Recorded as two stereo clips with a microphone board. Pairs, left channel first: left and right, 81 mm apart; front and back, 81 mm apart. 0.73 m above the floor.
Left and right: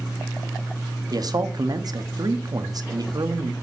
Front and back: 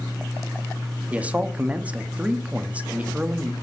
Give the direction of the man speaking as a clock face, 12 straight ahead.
4 o'clock.